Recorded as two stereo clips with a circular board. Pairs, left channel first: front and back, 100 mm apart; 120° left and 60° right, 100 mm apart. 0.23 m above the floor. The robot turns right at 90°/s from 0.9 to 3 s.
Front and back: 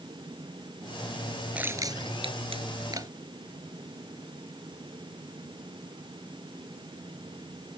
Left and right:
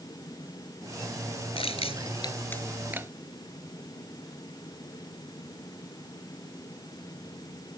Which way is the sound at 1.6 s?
100° left.